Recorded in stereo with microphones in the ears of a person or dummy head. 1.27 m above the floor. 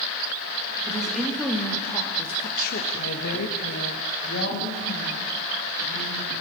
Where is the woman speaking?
Centre (ahead or behind), 2.5 m; by 6.4 s 50° left (ahead or behind), 5 m.